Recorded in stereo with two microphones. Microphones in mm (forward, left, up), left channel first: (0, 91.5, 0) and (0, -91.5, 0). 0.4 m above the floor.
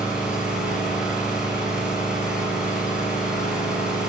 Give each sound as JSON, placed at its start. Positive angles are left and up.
{"t": 0.0, "sound": "an engine running", "side_deg": -5, "distance_m": 6.5}